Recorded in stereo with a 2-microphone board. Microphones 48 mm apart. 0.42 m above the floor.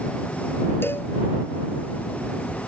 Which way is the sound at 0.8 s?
50° left (ahead or behind).